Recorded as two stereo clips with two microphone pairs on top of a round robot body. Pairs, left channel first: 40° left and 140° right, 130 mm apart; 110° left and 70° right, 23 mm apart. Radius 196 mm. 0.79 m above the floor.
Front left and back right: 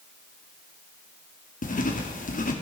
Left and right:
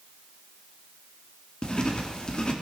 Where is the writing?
60° left, 2 m.